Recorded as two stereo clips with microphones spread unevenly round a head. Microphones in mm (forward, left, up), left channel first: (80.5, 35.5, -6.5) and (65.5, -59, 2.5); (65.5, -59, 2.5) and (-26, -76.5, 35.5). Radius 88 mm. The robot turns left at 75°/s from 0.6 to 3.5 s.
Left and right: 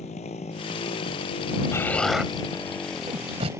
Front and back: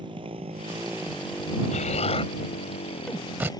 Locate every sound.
0.0 s a motorcycle: 130° left; by 3.6 s 35° right
1.7 s an explosion: 20° left; by 3.5 s 115° right